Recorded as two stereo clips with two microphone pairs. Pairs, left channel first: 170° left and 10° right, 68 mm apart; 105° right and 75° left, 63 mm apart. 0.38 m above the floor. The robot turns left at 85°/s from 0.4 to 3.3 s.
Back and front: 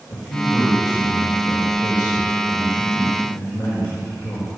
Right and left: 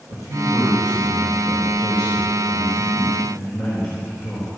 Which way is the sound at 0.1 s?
110° left.